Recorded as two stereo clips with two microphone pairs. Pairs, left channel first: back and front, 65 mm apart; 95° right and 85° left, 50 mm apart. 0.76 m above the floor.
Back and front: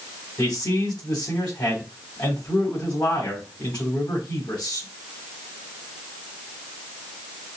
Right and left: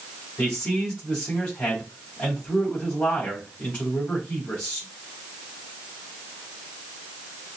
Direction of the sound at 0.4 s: 165° right.